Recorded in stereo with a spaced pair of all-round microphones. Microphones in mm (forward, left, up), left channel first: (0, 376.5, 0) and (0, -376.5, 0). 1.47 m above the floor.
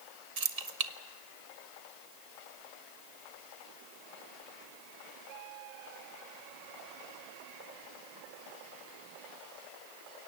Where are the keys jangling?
50° right (ahead or behind), 1.3 m.